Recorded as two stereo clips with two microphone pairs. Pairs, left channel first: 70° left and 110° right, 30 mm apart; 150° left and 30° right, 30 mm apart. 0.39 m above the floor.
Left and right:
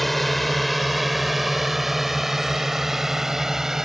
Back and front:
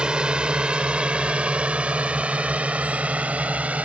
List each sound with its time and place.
0.0 s a drone: 15° right; by 3.9 s 45° right